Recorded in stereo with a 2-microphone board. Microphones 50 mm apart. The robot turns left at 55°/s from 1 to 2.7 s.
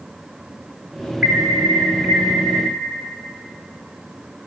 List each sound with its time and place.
1.2 s an alarm: 15° right, 2.5 m; by 2.7 s 95° right, 2.5 m